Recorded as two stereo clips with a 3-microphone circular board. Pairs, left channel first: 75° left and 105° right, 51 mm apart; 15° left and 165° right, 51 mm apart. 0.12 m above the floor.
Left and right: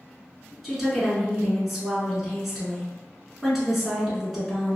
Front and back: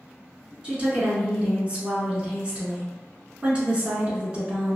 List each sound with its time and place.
0.6 s a woman speaking: 170° left, 1.1 m